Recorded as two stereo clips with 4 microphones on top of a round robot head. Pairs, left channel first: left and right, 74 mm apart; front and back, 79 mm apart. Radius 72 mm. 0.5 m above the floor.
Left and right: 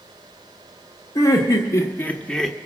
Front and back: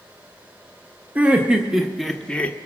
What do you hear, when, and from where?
1.1 s laughter: 110° left, 1.3 m; by 2.6 s straight ahead, 0.8 m